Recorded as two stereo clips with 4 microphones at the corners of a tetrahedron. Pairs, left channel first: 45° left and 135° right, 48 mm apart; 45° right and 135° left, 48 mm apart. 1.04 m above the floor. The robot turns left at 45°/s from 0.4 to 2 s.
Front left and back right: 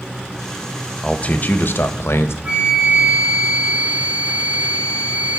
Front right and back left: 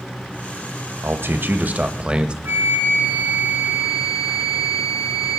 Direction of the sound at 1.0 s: 110° left.